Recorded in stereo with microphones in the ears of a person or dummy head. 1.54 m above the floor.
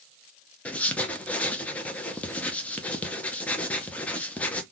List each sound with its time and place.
0.7 s writing: 10° left (ahead or behind), 0.6 m